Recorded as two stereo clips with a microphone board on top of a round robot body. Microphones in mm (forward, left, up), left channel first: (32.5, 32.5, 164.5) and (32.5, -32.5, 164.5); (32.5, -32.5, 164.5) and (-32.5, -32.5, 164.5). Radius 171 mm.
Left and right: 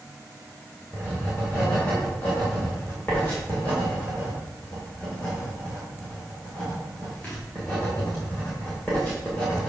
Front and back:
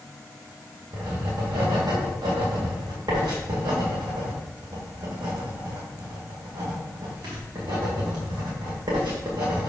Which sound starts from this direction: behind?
Writing, at 0.9 s.